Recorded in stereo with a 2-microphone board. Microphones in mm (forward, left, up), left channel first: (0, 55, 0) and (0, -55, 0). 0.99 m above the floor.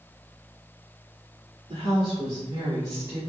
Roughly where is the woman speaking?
Right.